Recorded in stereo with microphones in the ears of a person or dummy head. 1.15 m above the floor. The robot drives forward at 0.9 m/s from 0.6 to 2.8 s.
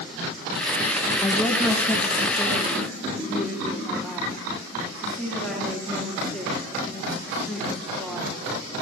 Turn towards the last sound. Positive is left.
turn(degrees=5)  # may be behind; listen again after turning